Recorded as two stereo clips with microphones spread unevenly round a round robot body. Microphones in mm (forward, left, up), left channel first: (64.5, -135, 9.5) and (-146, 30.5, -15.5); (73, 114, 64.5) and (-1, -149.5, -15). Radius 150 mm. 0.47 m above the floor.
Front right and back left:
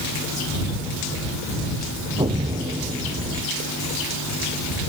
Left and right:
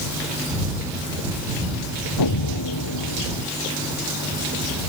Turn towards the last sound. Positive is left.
turn(degrees=65)